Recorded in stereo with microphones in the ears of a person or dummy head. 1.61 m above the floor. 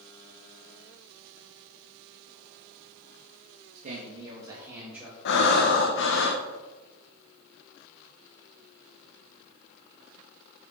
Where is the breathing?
65° left (ahead or behind), 1.1 m.